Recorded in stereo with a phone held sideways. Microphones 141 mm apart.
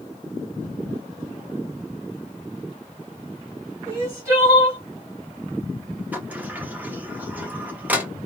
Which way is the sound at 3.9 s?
20° right (ahead or behind).